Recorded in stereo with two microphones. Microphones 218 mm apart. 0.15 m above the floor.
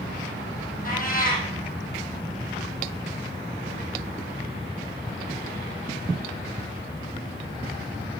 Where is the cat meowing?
40° left (ahead or behind), 3 m.